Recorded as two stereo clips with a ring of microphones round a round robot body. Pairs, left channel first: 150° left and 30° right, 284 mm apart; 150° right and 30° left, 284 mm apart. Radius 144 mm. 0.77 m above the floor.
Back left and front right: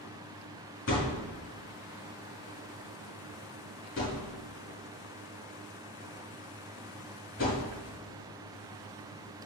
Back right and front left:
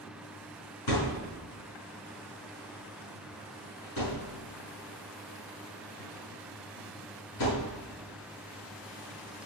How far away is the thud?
About 5 m.